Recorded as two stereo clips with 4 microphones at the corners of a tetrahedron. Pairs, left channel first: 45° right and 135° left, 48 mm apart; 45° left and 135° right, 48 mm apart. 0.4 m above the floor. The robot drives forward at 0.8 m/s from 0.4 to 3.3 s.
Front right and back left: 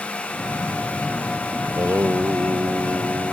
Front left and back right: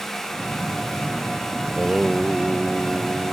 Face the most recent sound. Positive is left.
turn(degrees=165)